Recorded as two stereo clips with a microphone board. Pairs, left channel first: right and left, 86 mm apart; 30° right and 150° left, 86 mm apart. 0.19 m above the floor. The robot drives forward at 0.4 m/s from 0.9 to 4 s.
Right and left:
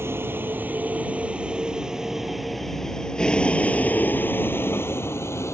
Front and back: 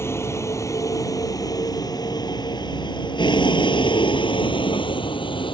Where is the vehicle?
30° left; by 5.5 s 35° right.